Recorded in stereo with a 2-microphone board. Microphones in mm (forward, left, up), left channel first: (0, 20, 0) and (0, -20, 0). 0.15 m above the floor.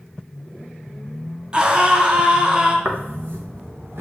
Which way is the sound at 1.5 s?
25° right (ahead or behind).